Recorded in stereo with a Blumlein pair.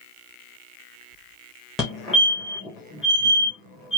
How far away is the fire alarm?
About 2 m.